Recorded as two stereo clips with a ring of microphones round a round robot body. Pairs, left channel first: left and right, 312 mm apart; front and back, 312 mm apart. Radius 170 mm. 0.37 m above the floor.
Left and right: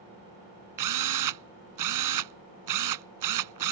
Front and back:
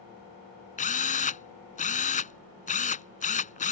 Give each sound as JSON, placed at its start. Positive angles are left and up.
{"t": 0.8, "sound": "a drill", "azimuth_deg": -65}